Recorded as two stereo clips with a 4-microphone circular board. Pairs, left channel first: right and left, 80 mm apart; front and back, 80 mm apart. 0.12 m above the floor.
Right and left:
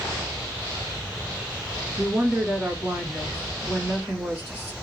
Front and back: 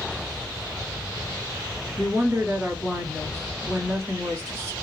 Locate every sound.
2.0 s a woman speaking: 140° left, 1.4 m